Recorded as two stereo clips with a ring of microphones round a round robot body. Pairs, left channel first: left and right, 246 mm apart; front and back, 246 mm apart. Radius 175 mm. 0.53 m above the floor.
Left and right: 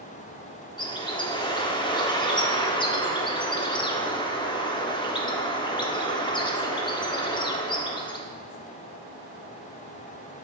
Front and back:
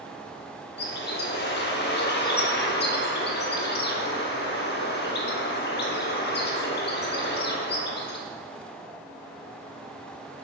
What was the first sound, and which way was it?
A bird, 25° left.